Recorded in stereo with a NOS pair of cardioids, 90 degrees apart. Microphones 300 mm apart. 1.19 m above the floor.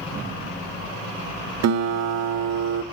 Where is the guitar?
60° right, 1.0 m.